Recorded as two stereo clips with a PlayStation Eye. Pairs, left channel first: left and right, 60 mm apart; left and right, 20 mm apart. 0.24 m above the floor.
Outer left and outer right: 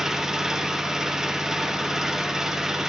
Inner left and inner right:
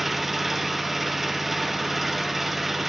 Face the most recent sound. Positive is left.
turn(degrees=-10)  # may be behind; listen again after turning